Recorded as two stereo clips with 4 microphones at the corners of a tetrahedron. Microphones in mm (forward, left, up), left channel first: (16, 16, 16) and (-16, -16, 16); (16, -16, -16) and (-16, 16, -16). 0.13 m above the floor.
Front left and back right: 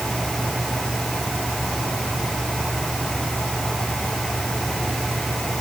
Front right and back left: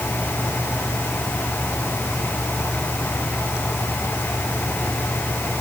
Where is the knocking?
No knocking in this recording.